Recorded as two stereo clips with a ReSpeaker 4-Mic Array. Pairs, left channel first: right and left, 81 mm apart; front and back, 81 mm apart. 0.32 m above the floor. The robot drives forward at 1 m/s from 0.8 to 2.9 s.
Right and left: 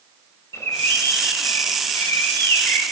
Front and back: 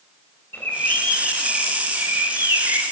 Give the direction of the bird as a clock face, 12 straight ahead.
2 o'clock.